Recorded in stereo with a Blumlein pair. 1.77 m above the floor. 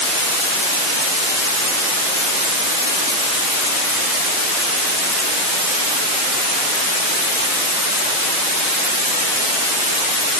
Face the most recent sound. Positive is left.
No sound to turn to.